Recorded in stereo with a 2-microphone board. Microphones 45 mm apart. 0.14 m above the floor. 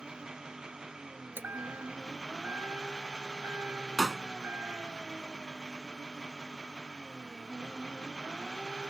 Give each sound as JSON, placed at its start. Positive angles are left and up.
{"t": 0.0, "sound": "an engine running", "side_deg": -10}
{"t": 1.4, "sound": "a chime", "side_deg": -45}
{"t": 4.0, "sound": "a pop", "side_deg": -10}